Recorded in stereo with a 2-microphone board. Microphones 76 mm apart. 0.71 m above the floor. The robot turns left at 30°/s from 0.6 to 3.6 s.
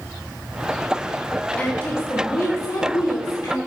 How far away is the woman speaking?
About 1.5 m.